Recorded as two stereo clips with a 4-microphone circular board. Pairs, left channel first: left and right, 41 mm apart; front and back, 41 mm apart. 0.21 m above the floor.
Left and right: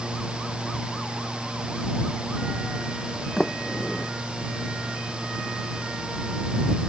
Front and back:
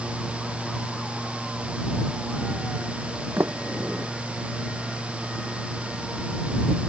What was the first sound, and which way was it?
A sliding door, 170° left.